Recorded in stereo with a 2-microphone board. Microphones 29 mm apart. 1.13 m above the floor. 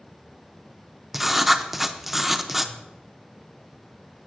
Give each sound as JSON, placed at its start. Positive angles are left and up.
{"t": 1.1, "sound": "writing", "side_deg": -10, "distance_m": 0.5}